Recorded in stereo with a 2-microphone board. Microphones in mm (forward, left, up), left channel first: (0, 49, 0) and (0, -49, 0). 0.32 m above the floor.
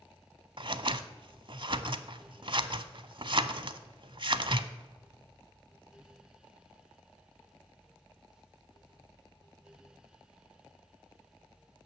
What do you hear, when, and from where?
0.6 s scissors: 60° right (ahead or behind), 0.6 m